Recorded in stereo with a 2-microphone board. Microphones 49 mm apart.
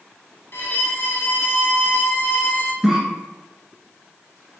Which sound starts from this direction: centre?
A cough, at 2.8 s.